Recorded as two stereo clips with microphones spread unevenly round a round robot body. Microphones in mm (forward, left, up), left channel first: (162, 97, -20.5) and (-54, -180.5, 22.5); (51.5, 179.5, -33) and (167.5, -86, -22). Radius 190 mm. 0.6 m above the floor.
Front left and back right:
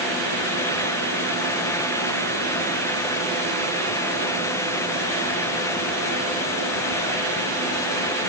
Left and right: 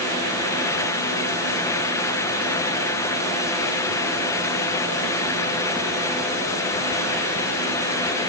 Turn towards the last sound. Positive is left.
No sound to turn to.